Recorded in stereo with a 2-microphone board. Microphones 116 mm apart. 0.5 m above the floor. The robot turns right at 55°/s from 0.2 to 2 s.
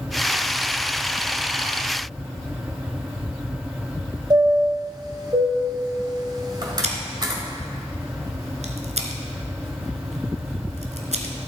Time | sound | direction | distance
4.3 | a chime | 35° right (ahead or behind) | 2 m
6.8 | scissors | 85° right | 1.6 m